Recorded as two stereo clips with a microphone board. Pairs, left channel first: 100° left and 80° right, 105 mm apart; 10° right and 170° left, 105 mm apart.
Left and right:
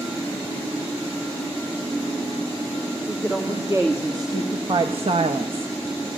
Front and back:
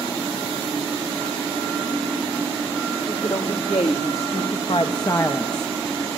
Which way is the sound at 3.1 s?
10° right.